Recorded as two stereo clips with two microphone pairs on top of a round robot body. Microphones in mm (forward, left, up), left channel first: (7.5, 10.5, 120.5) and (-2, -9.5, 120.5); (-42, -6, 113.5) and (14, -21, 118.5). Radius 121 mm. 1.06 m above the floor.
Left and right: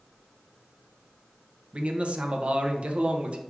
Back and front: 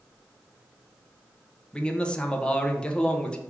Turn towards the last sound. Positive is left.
turn(degrees=-130)